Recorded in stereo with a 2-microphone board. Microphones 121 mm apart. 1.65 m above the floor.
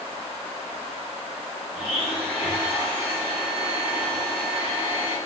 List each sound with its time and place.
1.7 s a blender: 50° left (ahead or behind), 1.6 m